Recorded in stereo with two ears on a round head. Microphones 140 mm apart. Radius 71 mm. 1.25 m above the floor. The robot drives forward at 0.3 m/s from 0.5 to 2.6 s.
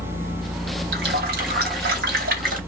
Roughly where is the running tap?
Right.